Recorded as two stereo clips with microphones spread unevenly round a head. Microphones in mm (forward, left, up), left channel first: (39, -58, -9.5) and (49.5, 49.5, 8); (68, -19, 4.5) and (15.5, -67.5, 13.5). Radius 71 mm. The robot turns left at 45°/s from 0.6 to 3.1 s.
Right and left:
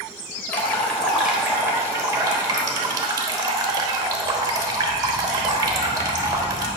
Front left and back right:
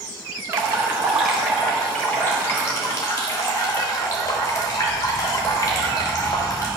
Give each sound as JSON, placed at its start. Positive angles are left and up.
{"t": 0.5, "sound": "dripping", "azimuth_deg": -175, "distance_m": 0.9}